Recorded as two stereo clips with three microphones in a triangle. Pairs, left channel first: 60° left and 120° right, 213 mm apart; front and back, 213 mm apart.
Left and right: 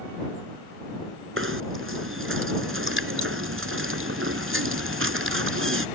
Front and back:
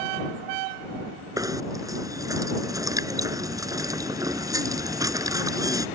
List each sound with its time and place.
1.4 s knocking: 105° right